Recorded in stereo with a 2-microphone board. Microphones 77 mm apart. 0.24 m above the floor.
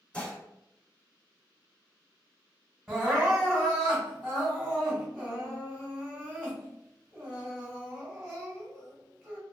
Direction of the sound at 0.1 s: 10° left (ahead or behind).